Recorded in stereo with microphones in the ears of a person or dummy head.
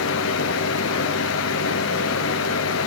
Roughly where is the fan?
Left.